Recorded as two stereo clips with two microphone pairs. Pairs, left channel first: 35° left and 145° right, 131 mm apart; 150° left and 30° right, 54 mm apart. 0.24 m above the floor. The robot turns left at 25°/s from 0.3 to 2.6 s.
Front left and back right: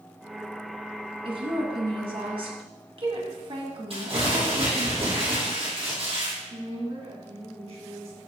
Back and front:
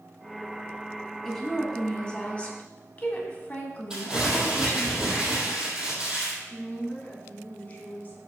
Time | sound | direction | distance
1.2 | a woman speaking | 130° right | 1.7 m
3.9 | crumpling | 105° right | 3.5 m
6.5 | a woman speaking | 160° right | 2.5 m